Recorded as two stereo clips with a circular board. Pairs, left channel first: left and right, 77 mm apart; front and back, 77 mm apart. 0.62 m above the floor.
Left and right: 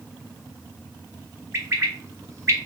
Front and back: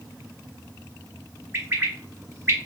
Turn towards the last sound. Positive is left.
turn(degrees=-130)